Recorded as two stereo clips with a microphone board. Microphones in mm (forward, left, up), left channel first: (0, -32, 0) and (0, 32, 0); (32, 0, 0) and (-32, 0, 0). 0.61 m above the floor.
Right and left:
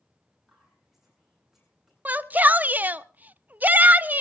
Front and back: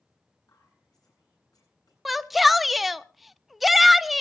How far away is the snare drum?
I don't hear a snare drum.